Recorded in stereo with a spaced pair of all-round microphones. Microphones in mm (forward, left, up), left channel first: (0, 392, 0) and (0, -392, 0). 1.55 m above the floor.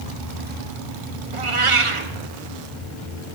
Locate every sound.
1.3 s a cat meowing: 40° right (ahead or behind), 0.9 m